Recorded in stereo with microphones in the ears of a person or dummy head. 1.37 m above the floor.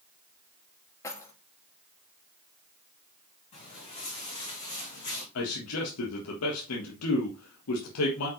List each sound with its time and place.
1.0 s keys jangling: 15° left (ahead or behind), 1.7 m
3.5 s footsteps: 35° left (ahead or behind), 4.5 m; by 5.2 s 40° left (ahead or behind), 3.5 m
5.3 s a man speaking: 85° left, 1.6 m